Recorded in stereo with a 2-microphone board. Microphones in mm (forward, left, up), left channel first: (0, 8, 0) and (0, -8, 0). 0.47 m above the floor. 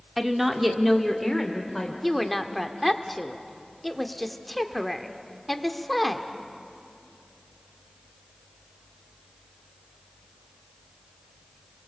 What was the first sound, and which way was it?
A woman speaking, 20° right (ahead or behind).